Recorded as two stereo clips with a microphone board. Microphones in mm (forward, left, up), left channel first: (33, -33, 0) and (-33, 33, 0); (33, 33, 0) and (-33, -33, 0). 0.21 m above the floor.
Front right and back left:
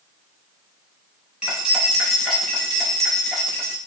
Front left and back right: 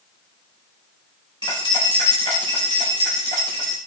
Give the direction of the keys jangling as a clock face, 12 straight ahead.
10 o'clock.